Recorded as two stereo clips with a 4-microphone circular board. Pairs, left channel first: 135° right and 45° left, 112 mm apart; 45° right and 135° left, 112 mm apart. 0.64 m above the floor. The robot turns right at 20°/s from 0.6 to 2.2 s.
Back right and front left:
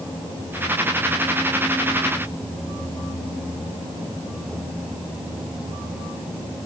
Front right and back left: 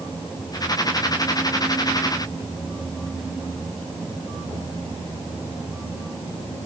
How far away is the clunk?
No clunk in this recording.